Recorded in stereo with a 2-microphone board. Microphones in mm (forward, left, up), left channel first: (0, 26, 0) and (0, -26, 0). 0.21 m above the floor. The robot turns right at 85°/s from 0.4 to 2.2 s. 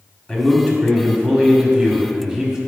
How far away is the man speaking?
About 1.2 m.